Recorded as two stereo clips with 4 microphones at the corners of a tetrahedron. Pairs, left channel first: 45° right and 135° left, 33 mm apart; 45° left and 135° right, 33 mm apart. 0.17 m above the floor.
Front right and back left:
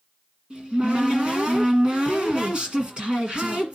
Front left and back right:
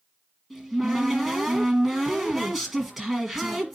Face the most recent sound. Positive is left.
turn(degrees=150)